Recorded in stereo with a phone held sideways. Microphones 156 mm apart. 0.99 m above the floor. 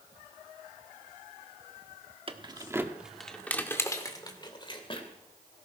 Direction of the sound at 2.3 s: 35° right (ahead or behind).